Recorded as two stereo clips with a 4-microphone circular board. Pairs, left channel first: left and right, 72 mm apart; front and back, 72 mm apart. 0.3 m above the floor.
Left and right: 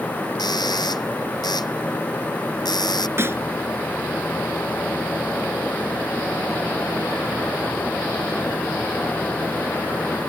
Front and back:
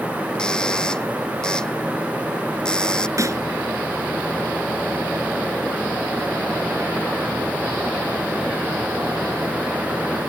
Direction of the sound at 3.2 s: 140° right.